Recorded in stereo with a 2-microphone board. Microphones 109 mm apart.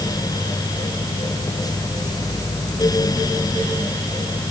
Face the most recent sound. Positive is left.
No sound to turn to.